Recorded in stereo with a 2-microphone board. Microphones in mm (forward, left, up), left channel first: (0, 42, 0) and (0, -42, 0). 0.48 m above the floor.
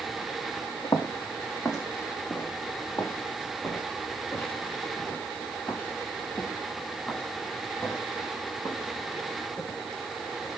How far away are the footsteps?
About 2 m.